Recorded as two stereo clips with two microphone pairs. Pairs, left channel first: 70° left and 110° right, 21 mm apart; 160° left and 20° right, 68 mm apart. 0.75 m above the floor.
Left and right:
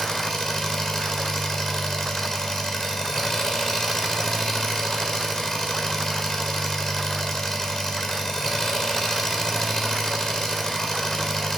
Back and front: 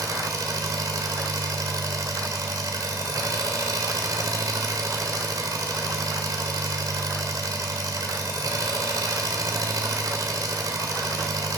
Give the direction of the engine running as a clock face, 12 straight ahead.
12 o'clock.